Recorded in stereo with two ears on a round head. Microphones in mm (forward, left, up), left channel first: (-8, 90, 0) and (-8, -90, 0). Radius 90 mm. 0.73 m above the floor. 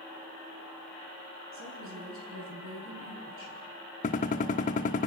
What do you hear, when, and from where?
1.5 s a woman speaking: 70° right (ahead or behind), 8.5 m
4.0 s a gunshot: 35° left (ahead or behind), 0.9 m